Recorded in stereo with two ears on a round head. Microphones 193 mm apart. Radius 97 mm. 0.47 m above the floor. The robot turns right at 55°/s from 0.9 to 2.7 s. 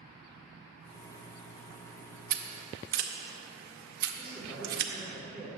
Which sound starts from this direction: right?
Scissors, at 2.3 s.